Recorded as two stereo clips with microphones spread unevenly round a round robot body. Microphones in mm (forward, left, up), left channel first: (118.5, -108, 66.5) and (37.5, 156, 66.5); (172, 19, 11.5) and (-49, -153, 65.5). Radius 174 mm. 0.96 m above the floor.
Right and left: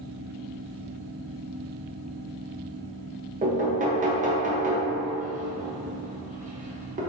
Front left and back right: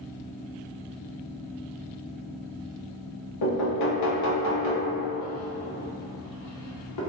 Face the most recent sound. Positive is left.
turn(degrees=45)